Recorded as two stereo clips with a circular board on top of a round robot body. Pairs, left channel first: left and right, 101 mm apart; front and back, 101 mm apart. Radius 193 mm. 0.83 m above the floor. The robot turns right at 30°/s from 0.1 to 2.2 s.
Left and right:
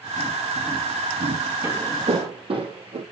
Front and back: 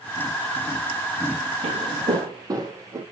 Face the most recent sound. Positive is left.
turn(degrees=-120)